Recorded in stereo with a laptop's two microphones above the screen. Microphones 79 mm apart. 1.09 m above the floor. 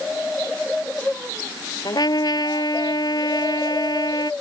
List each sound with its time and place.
1.9 s a trumpet: 55° left (ahead or behind)